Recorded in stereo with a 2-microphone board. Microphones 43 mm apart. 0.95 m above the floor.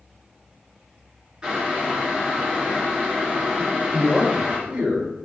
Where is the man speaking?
25° right (ahead or behind), 3 m.